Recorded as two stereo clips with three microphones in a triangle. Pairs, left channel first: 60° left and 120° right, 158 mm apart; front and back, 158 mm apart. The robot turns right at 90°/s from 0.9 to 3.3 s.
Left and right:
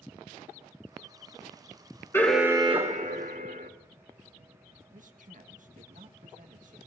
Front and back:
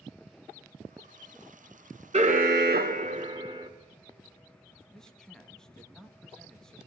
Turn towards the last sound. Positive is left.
turn(degrees=-85)